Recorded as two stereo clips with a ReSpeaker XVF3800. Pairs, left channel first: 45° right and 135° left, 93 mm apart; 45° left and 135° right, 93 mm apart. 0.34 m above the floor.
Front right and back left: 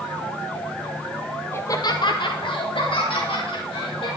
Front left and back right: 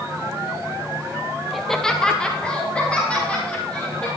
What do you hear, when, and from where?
1.5 s laughter: 45° right, 0.9 m; by 4.1 s 30° right, 4.5 m